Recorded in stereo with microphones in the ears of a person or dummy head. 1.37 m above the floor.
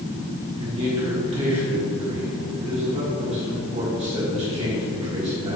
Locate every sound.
0.6 s a man speaking: 30° right (ahead or behind), 1.9 m